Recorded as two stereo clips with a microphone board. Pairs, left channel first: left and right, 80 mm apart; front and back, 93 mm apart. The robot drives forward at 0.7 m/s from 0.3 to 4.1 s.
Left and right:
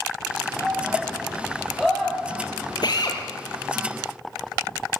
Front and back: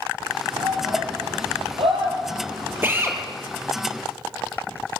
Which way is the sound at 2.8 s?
115° left.